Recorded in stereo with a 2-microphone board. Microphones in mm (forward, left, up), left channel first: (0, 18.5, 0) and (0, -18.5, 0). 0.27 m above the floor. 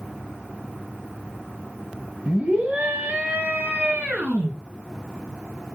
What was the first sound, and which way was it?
A scream, 35° right (ahead or behind).